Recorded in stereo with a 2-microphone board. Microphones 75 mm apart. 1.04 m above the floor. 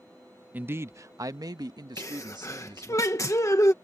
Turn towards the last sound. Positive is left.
turn(degrees=45)  # may be behind; listen again after turning